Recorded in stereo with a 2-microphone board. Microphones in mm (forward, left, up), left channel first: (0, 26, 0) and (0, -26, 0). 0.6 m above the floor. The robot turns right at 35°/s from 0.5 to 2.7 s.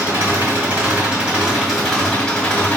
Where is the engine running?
45° right, 2.5 m; by 2.8 s 30° left, 2.5 m.